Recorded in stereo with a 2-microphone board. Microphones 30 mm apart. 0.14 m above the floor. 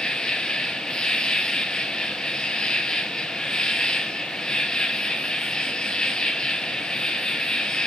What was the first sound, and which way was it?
An insect, 25° left (ahead or behind).